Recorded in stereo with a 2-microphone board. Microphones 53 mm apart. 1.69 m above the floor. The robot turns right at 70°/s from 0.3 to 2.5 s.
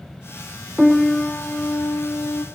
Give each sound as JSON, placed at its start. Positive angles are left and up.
{"t": 0.8, "sound": "a piano", "azimuth_deg": -5, "distance_m": 0.6}